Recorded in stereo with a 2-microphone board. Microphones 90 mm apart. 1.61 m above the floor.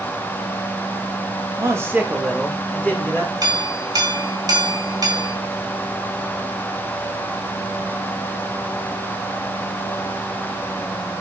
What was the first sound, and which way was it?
A man speaking, 35° right (ahead or behind).